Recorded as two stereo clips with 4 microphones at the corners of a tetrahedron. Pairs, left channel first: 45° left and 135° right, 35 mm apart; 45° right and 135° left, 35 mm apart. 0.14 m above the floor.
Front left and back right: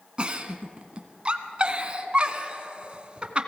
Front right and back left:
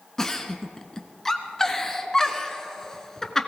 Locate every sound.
0.2 s a giggle: 105° right, 1.1 m